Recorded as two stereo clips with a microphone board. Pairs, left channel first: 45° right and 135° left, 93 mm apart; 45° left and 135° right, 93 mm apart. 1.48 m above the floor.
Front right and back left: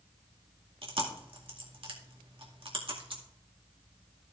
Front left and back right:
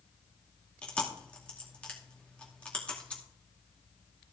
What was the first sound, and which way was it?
Chewing, 120° left.